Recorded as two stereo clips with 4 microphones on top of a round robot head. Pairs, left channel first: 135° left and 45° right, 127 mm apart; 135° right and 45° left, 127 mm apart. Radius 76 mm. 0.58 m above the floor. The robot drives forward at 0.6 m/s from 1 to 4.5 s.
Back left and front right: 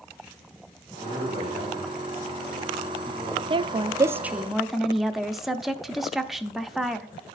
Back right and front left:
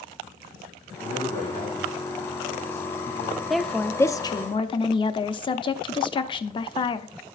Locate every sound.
1.0 s a man speaking: straight behind, 6 m
3.5 s a woman speaking: 40° right, 0.7 m; by 7.1 s 135° right, 0.7 m